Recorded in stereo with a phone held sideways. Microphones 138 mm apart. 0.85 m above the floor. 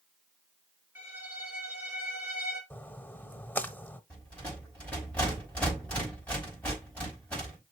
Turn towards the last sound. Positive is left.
turn(degrees=10)  # may be behind; listen again after turning